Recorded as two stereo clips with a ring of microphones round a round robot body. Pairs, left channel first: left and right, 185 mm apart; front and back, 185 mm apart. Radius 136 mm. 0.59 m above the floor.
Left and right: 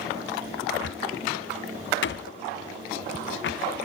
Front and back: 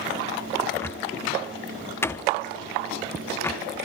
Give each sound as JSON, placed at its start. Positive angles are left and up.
{"t": 0.7, "sound": "a cupboard door", "azimuth_deg": 80, "distance_m": 0.7}